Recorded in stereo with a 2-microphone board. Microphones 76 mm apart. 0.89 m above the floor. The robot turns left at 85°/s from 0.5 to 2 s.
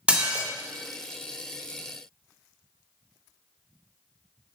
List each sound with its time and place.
0.1 s dishes clattering: 15° right (ahead or behind), 0.6 m